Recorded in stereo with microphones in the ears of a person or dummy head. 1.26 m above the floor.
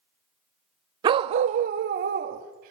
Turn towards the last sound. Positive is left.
turn(degrees=-40)  # may be behind; listen again after turning